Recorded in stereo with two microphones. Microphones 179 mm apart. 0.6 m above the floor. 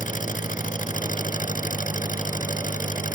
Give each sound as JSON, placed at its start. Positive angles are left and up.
{"t": 0.0, "sound": "an engine running", "side_deg": 50}